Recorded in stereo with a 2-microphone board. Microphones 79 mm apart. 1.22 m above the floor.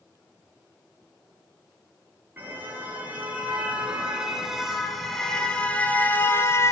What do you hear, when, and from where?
2.4 s a car horn: 25° right (ahead or behind), 8 m; by 6.7 s 40° left (ahead or behind), 4 m